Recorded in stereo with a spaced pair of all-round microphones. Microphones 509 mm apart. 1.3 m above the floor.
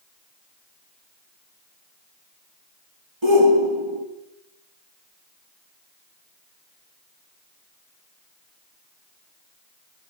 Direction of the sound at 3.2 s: 65° right (ahead or behind).